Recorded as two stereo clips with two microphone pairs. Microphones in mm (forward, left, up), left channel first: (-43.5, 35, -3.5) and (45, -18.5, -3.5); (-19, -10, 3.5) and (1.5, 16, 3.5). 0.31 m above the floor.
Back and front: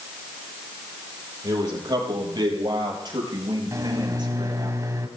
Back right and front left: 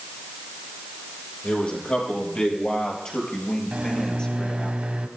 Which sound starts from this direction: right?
A man speaking, at 1.4 s.